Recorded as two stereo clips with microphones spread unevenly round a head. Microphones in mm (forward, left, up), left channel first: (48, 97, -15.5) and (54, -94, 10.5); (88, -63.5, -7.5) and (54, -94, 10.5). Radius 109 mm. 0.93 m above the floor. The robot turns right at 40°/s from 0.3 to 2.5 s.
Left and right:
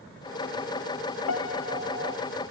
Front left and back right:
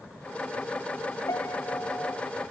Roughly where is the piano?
Left.